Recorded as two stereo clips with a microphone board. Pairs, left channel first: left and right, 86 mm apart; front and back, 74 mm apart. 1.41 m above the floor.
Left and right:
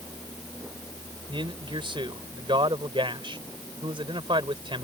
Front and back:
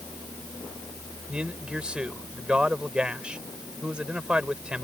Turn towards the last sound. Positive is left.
turn(degrees=-100)